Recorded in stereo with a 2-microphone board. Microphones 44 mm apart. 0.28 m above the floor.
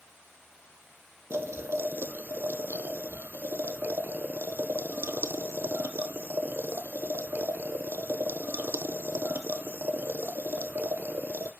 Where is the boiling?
65° right (ahead or behind), 0.6 m.